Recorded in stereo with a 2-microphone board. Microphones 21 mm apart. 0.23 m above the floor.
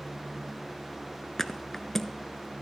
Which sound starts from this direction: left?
A thud, at 1.4 s.